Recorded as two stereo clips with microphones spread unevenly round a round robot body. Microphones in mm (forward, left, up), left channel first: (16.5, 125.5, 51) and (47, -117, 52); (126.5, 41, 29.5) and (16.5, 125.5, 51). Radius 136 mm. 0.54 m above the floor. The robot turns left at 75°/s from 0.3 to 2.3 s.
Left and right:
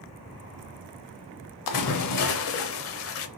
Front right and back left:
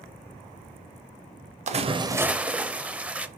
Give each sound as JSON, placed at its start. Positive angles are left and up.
{"t": 1.7, "sound": "a splash", "azimuth_deg": 110, "distance_m": 0.6}